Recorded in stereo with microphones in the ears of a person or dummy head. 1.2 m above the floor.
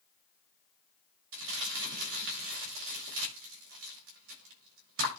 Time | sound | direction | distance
1.3 | crumpling | 70° right (ahead or behind) | 7.5 m